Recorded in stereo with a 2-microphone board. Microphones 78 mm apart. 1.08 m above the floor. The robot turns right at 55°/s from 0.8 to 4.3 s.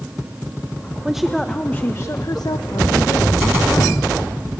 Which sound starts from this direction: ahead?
A woman speaking, at 1.1 s.